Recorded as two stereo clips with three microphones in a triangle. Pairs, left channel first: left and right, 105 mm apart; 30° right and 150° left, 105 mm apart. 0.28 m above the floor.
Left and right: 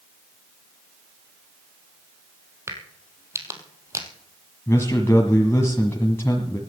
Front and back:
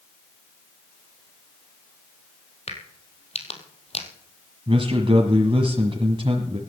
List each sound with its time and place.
2.7 s a crack: 25° right, 2 m
4.7 s a man speaking: 150° left, 1.6 m